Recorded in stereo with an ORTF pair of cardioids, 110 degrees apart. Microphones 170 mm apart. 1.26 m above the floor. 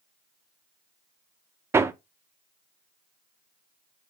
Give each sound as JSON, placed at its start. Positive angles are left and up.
{"t": 1.7, "sound": "hammering", "azimuth_deg": -15, "distance_m": 0.6}